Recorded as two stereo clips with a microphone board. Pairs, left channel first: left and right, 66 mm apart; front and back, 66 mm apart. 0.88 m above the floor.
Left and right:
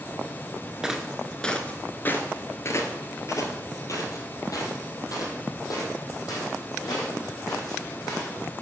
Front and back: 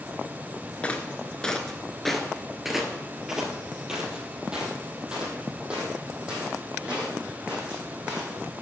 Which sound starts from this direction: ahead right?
Footsteps, at 0.8 s.